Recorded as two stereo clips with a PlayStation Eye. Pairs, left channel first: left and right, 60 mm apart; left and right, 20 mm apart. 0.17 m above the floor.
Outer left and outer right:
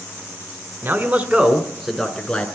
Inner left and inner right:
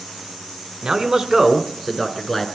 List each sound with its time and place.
0.8 s a man speaking: 40° right (ahead or behind), 1.4 m; by 2.5 s 15° left (ahead or behind), 1.8 m